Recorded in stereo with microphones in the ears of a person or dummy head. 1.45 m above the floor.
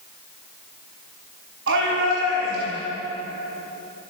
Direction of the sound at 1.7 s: 80° right.